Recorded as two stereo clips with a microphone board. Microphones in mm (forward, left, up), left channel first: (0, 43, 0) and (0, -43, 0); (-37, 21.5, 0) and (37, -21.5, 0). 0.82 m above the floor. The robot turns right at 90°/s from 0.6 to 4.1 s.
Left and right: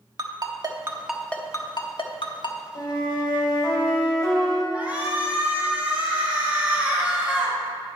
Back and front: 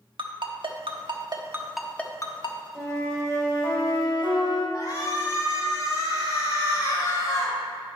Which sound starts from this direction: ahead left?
A flute, at 2.8 s.